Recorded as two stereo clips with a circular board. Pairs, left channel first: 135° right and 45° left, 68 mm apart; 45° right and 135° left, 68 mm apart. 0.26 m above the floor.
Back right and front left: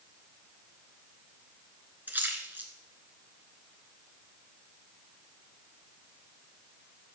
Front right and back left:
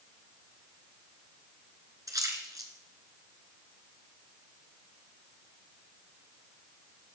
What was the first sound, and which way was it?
A splash, 105° left.